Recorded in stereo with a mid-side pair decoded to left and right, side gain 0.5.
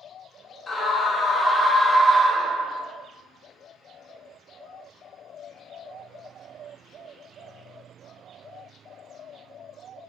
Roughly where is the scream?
Ahead left.